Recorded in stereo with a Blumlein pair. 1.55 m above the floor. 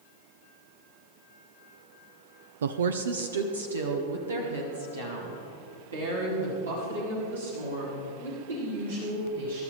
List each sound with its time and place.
2.6 s a woman speaking: 65° right, 0.5 m; by 9.6 s 75° right, 7 m